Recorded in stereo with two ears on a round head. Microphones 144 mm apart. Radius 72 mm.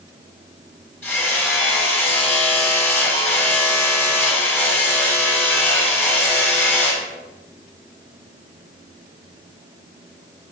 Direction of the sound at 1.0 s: 15° left (ahead or behind).